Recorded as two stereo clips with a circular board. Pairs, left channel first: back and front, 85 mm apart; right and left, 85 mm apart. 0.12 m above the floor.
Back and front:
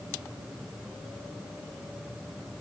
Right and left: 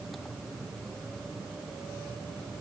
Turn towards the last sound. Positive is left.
No sound to turn to.